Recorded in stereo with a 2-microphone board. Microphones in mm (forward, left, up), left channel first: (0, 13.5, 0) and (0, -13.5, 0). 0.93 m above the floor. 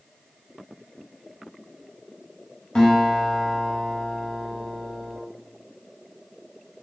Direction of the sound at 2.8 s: 35° left (ahead or behind).